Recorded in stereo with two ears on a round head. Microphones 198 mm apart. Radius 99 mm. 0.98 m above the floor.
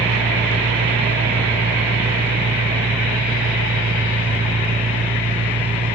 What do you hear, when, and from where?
0.0 s an engine running: 20° right (ahead or behind), 1.1 m